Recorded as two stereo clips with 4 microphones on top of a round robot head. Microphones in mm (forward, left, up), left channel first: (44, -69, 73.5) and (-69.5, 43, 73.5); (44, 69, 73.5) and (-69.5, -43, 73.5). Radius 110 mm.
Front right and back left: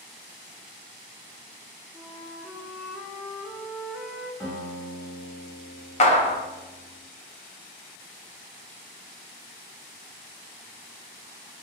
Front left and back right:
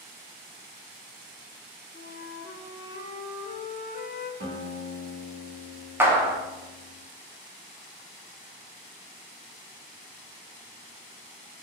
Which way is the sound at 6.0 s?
65° right.